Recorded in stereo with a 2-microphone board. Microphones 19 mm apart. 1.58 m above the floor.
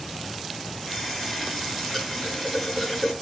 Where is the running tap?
Centre (ahead or behind), 8.5 m.